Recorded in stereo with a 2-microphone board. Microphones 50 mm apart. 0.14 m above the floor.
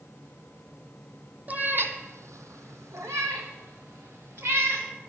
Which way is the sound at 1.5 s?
35° right (ahead or behind).